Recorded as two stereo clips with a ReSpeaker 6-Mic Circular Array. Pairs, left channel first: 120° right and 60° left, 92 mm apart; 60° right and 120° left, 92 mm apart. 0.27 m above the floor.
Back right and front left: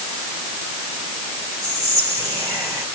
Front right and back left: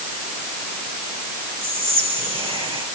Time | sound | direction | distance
1.6 | whispering | 115° left | 5 m